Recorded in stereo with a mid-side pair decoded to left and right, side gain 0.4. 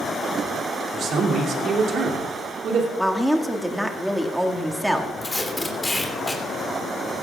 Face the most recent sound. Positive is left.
turn(degrees=20)